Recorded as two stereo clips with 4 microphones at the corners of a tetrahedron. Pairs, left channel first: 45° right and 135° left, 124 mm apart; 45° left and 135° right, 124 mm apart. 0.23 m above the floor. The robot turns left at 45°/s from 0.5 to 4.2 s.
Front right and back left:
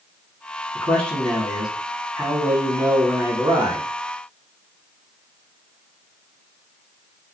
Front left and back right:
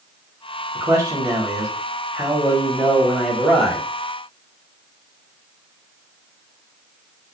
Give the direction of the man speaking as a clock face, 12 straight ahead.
3 o'clock.